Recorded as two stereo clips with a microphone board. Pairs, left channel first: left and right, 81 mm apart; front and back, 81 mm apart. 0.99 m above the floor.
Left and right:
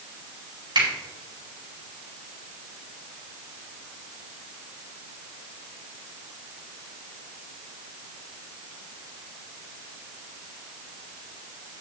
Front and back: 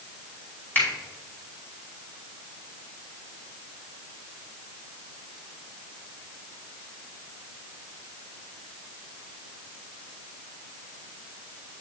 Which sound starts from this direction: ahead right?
A finger snap, at 0.8 s.